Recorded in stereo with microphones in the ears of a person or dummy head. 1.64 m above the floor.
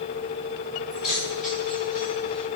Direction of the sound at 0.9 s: 5° right (ahead or behind).